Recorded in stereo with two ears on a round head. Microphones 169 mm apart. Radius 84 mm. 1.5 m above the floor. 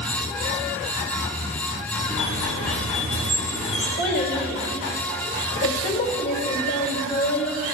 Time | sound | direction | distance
2.1 | a squeak | 35° left (ahead or behind) | 1.8 m
4.0 | a child speaking | 65° left (ahead or behind) | 2.0 m